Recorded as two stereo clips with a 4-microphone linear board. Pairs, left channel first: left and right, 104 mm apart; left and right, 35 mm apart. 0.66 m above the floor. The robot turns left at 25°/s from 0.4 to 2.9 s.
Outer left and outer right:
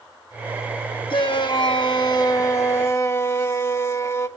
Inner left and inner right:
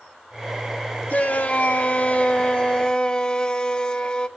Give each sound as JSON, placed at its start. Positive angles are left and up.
{"t": 1.1, "sound": "a shout", "azimuth_deg": 80, "distance_m": 1.4}